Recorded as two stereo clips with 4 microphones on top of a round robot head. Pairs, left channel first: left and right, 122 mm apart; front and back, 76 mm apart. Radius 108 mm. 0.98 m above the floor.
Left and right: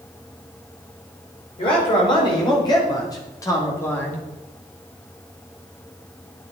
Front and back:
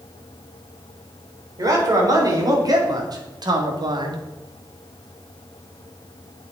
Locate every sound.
1.6 s a man speaking: 140° left, 4.5 m; by 4.2 s 170° left, 2 m